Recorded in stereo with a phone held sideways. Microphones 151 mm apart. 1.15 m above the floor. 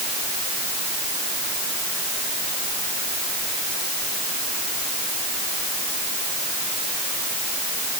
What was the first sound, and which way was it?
Only background noise.